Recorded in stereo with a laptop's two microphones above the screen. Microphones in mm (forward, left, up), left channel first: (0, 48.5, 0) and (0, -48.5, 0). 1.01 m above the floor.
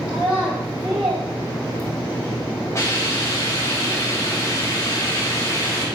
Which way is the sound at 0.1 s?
85° right.